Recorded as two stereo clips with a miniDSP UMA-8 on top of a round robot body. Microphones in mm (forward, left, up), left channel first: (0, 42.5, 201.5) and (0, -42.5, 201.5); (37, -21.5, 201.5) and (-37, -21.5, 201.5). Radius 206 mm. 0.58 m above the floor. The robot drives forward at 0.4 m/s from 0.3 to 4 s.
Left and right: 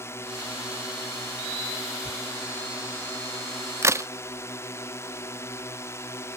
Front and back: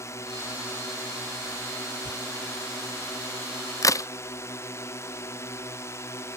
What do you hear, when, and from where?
0.0 s a drone: 40° left
2.0 s tearing paper: straight ahead
3.8 s a crack: 35° right